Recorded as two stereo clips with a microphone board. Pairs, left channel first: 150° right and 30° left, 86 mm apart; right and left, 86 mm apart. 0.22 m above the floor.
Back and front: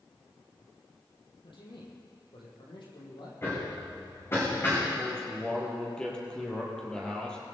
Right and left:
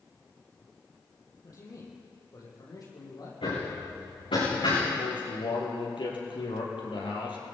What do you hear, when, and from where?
1.4 s a man speaking: 135° right, 6.5 m; by 3.3 s 130° right, 8 m
3.4 s hammering: 90° right, 9.5 m
5.0 s a man speaking: 70° right, 5.5 m